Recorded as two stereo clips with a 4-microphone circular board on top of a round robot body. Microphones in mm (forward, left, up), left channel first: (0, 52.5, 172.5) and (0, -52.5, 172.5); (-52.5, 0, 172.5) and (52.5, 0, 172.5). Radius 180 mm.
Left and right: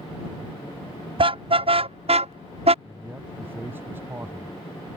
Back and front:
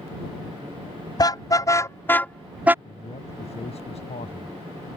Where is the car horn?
125° right; by 2.8 s 70° right.